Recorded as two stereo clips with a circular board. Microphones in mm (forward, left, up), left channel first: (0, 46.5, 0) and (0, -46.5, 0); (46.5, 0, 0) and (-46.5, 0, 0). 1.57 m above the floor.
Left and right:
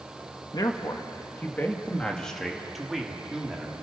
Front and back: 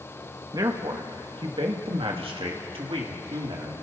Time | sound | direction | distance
0.5 | a man speaking | 135° left | 1.8 m